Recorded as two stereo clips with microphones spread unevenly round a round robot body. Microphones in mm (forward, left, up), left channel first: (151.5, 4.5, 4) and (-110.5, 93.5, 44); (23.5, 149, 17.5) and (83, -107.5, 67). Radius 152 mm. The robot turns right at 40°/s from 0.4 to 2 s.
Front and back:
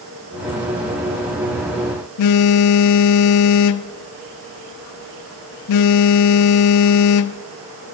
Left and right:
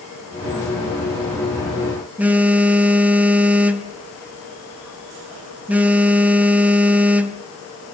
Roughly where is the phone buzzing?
Ahead.